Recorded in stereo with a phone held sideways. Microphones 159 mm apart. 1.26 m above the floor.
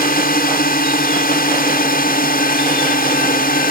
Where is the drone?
70° left (ahead or behind).